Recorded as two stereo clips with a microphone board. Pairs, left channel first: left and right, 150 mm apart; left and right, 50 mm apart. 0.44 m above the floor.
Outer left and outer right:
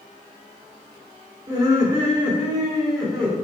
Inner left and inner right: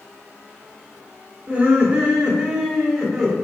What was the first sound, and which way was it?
Laughter, 25° right (ahead or behind).